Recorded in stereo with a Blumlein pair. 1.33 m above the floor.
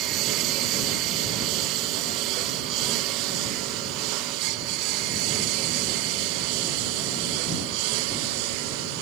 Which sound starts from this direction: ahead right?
A lawn mower, at 0.0 s.